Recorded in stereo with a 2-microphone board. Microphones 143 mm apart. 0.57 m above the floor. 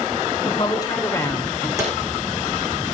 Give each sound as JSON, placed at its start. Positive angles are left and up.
{"t": 0.4, "sound": "a woman speaking", "side_deg": 35, "distance_m": 2.5}
{"t": 1.8, "sound": "a drawer", "side_deg": -25, "distance_m": 9.0}